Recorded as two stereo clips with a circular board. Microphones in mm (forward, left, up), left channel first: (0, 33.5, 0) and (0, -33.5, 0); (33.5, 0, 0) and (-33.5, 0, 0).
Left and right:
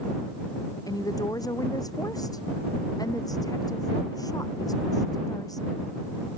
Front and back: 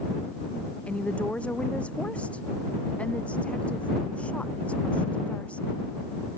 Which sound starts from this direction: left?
A woman speaking, at 0.9 s.